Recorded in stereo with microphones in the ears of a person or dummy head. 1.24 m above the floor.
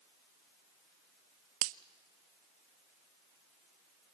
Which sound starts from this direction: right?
A finger snap, at 1.6 s.